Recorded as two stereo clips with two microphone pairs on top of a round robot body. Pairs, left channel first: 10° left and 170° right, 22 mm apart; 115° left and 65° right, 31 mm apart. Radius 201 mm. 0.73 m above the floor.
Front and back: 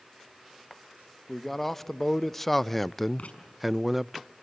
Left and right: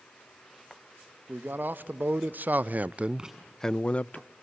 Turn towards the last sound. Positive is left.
turn(degrees=10)